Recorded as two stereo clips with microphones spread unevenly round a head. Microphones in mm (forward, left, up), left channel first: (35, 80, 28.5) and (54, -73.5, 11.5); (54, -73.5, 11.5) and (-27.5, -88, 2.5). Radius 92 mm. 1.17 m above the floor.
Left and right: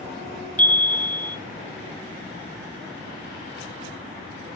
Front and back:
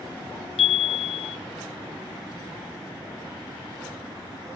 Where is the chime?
15° left, 0.8 m.